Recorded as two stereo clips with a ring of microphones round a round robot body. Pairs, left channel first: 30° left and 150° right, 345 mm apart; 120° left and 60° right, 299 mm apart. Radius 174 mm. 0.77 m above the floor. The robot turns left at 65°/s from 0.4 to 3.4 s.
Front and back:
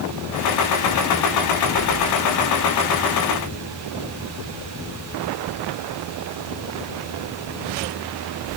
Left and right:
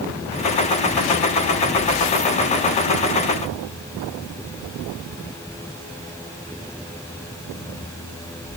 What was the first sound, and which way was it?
Only background noise.